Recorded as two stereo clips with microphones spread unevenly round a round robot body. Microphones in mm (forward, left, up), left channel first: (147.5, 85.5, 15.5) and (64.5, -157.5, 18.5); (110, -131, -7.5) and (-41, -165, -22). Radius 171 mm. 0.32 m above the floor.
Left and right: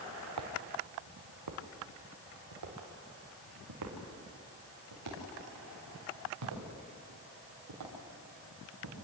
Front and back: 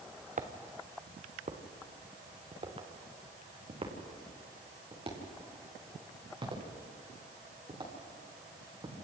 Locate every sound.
0.4 s footsteps: 130° right, 2 m; by 8.9 s 110° right, 9.5 m